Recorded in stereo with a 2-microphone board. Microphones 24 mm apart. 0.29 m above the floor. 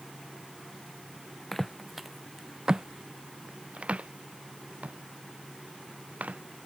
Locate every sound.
1.5 s footsteps: 5° left (ahead or behind); by 6.4 s 75° right (ahead or behind)